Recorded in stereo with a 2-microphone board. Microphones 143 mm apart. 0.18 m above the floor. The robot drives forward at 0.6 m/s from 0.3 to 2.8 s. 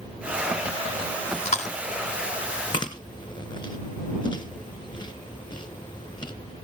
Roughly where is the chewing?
Left.